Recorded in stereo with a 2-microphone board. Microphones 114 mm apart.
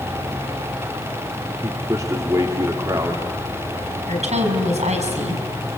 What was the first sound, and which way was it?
A man speaking, 30° right (ahead or behind).